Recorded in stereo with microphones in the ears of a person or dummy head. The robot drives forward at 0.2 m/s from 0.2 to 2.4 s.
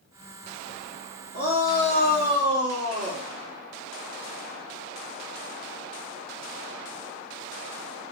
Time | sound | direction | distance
1.3 | a shout | 45° right (ahead or behind) | 1.3 m